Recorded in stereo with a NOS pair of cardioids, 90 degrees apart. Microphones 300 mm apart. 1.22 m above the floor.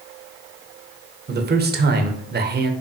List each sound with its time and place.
1.3 s a man speaking: 35° right, 0.7 m